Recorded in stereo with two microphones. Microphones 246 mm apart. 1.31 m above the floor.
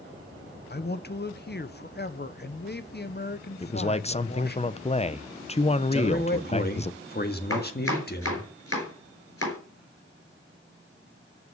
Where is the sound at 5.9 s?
40° left (ahead or behind), 1.7 m.